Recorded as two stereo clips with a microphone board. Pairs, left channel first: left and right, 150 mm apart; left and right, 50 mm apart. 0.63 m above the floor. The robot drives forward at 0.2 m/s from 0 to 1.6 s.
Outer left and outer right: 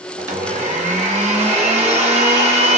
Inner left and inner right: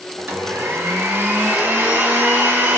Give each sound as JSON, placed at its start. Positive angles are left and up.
{"t": 0.2, "sound": "a blender", "side_deg": -55, "distance_m": 0.7}